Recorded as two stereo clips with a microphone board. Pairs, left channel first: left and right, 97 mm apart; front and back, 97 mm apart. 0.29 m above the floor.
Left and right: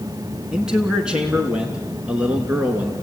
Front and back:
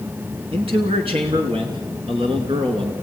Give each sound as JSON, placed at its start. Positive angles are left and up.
{"t": 0.5, "sound": "a man speaking", "azimuth_deg": -175, "distance_m": 3.0}